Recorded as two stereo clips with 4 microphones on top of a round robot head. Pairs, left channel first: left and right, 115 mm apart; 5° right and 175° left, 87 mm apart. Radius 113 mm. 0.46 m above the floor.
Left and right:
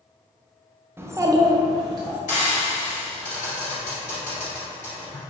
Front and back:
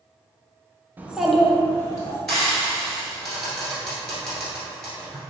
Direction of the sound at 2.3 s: 80° left.